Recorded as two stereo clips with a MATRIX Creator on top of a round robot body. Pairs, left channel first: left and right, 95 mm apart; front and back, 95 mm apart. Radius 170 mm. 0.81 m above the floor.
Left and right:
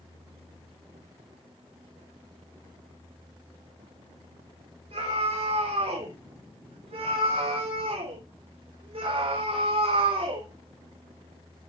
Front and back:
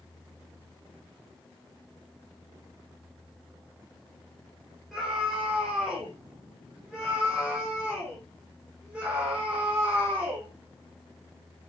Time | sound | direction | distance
4.9 | a scream | 90° right | 6 m